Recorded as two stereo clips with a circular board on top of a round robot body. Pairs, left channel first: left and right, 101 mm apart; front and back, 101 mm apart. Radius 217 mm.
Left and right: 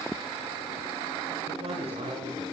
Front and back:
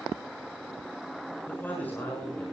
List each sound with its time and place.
1.5 s a man speaking: 75° right, 7.5 m